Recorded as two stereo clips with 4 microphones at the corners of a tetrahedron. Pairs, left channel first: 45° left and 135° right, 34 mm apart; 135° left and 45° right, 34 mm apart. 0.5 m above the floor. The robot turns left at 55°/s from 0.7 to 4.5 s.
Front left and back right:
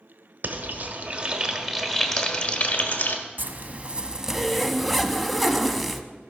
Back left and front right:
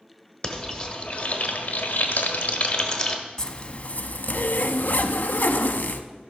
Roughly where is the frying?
Behind.